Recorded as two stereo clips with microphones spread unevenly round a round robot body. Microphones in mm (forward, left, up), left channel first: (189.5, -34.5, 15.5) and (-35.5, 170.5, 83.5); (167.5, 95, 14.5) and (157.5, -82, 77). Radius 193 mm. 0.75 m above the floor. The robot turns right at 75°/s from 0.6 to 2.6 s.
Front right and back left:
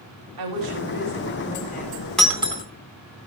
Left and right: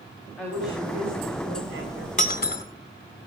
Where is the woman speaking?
170° left, 5.5 m; by 2.1 s 80° right, 5.5 m.